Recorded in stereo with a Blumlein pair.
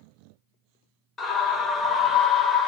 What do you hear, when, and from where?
1.2 s a scream: 15° left, 0.7 m